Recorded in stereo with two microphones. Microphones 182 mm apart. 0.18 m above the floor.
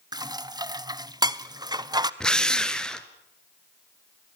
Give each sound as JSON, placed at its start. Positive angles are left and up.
{"t": 0.1, "sound": "dishes clattering", "side_deg": -20, "distance_m": 0.7}
{"t": 2.2, "sound": "a drill", "side_deg": 5, "distance_m": 1.3}